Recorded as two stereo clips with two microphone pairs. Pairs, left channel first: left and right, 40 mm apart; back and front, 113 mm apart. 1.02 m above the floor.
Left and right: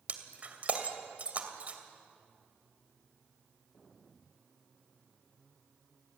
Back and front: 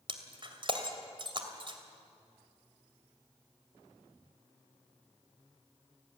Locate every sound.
0.1 s breaking glass: 45° right, 2.5 m